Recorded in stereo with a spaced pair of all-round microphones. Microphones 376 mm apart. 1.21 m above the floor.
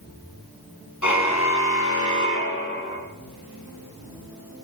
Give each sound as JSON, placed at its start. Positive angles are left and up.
{"t": 1.0, "sound": "a car horn", "side_deg": 50, "distance_m": 5.5}